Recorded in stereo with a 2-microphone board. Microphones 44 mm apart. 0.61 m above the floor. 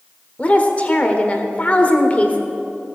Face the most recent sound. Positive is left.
turn(degrees=30)  # may be behind; listen again after turning